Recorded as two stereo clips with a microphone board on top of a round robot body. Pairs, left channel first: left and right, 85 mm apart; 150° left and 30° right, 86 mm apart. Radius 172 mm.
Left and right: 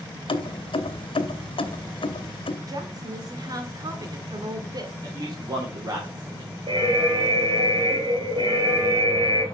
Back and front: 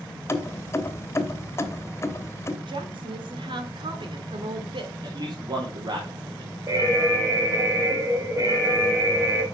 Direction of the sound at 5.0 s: 55° right.